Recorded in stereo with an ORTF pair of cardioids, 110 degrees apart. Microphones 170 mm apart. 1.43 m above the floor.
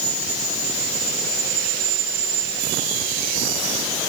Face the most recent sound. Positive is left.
No sound to turn to.